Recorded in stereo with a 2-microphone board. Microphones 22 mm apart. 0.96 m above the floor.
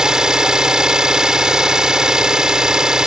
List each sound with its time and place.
0.0 s an engine running: 30° right (ahead or behind)